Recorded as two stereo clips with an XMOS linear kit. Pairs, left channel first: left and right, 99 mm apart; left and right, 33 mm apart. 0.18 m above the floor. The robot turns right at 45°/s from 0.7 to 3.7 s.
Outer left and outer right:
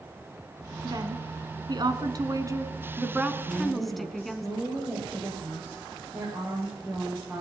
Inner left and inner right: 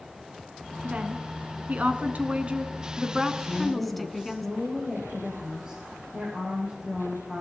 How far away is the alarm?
I don't hear an alarm.